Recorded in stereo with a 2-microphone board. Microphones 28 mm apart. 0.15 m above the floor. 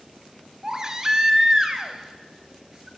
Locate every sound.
0.6 s a baby crying: 25° right (ahead or behind), 0.9 m